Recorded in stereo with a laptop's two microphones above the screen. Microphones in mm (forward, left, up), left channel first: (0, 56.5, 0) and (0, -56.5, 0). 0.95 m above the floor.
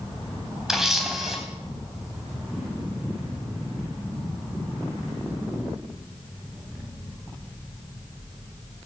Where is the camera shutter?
5° right (ahead or behind), 3 m.